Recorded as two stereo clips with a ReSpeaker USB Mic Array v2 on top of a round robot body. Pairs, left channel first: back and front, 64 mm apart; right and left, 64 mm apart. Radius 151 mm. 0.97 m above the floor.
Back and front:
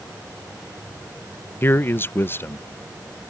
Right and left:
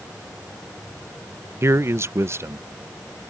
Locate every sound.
1.6 s a man speaking: 130° left